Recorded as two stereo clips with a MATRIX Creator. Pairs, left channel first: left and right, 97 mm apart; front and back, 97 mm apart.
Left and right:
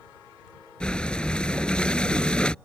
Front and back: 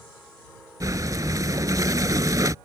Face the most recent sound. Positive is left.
turn(degrees=165)